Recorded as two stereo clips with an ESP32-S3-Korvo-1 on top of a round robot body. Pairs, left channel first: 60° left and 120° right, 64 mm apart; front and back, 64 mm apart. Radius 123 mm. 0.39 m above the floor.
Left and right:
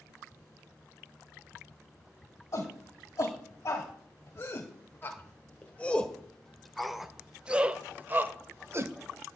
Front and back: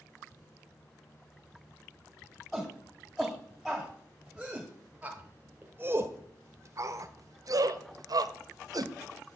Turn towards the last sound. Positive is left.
turn(degrees=-165)